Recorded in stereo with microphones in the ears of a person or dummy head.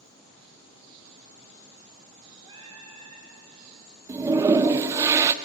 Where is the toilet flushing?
20° right (ahead or behind), 0.5 m.